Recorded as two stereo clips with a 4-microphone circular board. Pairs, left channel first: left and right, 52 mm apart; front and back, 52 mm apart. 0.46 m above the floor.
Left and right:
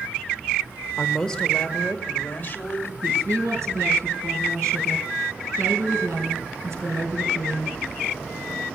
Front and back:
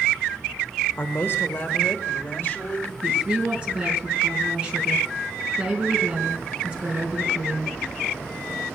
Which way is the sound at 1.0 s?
5° left.